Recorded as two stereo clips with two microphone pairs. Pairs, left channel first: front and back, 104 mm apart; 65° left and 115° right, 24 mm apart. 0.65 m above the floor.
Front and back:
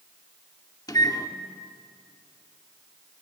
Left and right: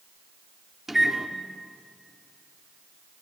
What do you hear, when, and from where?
0.9 s a microwave: 45° right, 1.3 m